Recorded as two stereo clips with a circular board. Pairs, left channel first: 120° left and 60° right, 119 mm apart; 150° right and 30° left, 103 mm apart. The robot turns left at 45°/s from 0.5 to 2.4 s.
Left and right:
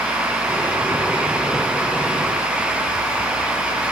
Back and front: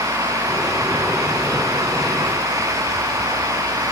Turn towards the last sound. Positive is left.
No sound to turn to.